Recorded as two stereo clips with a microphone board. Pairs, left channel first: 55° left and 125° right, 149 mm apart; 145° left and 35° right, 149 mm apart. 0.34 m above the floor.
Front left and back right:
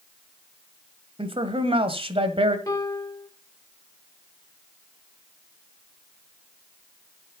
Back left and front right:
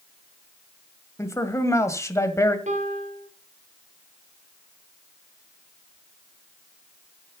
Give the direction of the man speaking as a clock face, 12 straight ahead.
5 o'clock.